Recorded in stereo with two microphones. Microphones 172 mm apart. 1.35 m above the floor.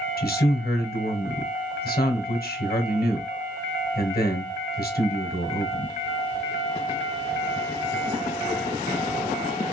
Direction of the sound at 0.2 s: 60° left (ahead or behind).